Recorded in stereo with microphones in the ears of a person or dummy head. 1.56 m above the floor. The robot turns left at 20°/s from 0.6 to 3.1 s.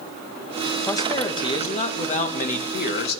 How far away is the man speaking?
About 1.2 m.